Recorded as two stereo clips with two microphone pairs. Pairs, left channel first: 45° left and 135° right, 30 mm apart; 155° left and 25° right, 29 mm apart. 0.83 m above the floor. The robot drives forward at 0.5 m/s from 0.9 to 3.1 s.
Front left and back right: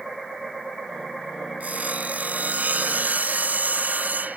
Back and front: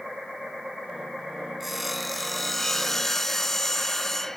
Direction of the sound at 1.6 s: 110° right.